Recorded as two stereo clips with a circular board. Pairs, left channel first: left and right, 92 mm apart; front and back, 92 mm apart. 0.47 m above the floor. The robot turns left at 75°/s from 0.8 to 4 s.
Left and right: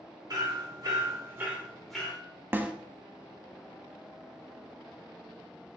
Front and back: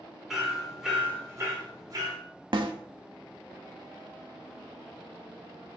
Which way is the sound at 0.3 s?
95° right.